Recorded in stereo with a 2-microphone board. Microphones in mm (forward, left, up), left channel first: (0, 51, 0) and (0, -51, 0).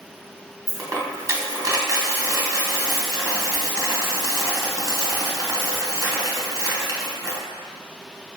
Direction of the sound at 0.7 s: 35° right (ahead or behind).